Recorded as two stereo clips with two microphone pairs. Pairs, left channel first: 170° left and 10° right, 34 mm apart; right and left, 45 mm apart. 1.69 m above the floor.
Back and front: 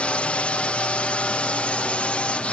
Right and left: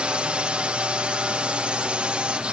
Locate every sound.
0.0 s a drone: 145° left